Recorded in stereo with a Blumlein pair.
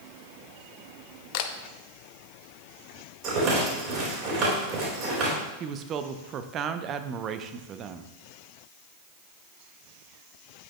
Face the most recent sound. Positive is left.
turn(degrees=-30)